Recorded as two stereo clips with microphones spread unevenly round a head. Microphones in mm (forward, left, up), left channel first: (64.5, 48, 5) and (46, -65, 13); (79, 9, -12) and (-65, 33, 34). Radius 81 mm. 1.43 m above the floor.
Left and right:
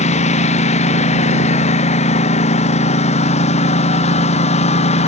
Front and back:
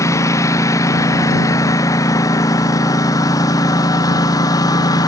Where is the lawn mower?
60° left; by 5.1 s 55° left.